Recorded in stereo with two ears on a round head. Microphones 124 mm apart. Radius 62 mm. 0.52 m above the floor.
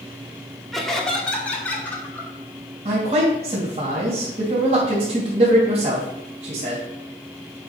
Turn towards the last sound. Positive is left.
turn(degrees=-50)  # may be behind; listen again after turning